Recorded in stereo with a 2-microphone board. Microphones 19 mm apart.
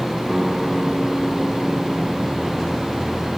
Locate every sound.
0.3 s a guitar: 35° right (ahead or behind), 9 m